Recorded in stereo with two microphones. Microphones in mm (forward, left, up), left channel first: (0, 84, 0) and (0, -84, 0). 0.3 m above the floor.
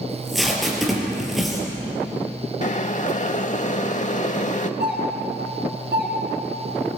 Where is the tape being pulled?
Centre (ahead or behind), 4.5 m.